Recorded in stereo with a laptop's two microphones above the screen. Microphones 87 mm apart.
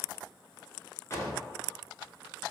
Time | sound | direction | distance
1.1 | a drawer | 30° left (ahead or behind) | 0.5 m